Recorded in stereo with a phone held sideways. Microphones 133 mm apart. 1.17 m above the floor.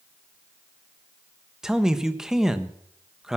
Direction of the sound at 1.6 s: 5° right (ahead or behind).